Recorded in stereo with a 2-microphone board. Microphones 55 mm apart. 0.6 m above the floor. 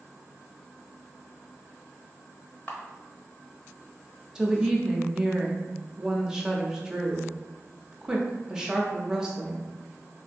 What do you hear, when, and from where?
2.7 s a camera shutter: 35° left (ahead or behind), 0.9 m
4.3 s a woman speaking: 10° right (ahead or behind), 0.6 m